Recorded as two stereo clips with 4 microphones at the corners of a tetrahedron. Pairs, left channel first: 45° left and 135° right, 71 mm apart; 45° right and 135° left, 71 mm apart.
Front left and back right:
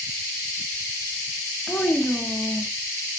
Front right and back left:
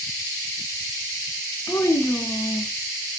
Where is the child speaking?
20° right, 1.1 m.